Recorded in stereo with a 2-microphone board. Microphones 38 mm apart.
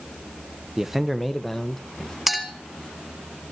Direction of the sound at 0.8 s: 15° right (ahead or behind).